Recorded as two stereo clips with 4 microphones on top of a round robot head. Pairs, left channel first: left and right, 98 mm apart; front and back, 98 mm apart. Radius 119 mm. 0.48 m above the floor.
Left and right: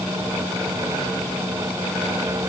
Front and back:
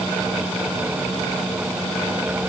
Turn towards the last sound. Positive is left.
No sound to turn to.